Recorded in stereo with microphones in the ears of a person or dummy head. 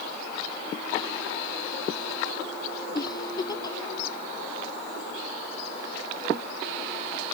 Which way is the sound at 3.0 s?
20° left (ahead or behind).